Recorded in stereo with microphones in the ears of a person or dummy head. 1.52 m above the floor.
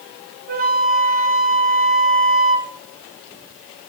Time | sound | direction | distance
0.5 | a flute | 40° right (ahead or behind) | 0.6 m